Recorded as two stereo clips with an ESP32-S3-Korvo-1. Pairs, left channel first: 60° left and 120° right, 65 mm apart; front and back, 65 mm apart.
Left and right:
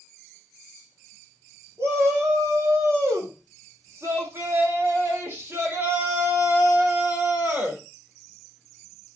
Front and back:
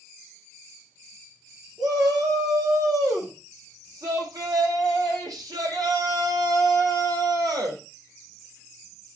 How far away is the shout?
About 8 m.